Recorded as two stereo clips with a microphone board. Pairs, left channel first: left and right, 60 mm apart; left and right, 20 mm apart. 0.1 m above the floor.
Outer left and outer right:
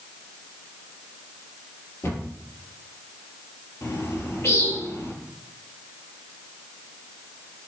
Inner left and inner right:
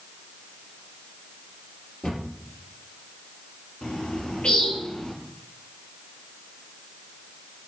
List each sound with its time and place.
2.0 s a cupboard door: 45° left (ahead or behind), 2.5 m
3.8 s a bird: 50° left (ahead or behind), 1.0 m